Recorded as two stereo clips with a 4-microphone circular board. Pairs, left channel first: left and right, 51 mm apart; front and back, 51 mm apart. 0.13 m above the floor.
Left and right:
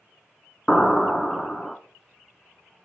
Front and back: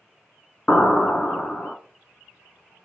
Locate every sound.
0.7 s an explosion: 25° left, 0.6 m